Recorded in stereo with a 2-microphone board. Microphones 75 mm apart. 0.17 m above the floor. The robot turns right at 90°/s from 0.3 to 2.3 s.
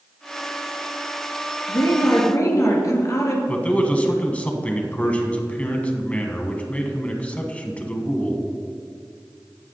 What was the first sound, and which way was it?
A woman speaking, 70° left.